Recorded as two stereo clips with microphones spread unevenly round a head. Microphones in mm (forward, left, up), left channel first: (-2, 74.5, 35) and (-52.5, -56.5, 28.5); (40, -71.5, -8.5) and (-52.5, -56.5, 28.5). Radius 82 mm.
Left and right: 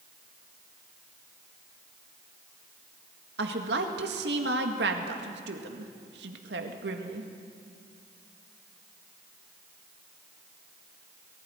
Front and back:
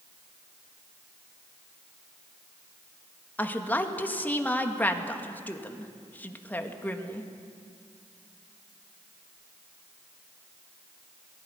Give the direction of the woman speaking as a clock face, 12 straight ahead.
3 o'clock.